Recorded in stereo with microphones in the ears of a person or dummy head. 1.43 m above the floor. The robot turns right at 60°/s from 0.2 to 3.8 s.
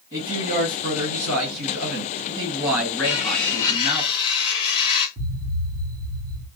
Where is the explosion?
60° right (ahead or behind), 1.4 m.